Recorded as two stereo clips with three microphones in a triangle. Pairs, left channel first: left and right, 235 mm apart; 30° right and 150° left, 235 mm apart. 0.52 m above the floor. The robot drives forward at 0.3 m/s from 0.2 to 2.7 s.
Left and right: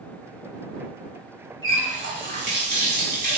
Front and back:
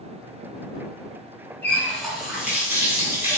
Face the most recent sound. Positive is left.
turn(degrees=-130)